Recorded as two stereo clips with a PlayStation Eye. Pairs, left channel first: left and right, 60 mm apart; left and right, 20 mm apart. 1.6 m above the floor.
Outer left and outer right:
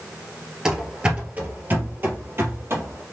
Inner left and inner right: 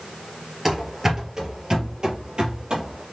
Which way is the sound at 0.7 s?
10° right (ahead or behind).